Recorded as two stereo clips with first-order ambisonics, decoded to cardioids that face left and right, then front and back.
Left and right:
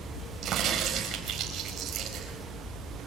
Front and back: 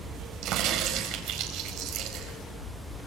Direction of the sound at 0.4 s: 145° right.